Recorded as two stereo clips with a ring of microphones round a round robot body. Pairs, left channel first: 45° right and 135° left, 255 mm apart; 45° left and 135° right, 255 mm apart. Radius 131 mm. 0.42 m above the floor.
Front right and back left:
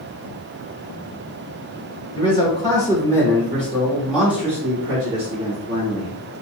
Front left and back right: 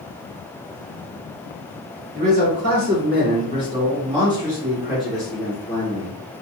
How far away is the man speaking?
About 2.0 m.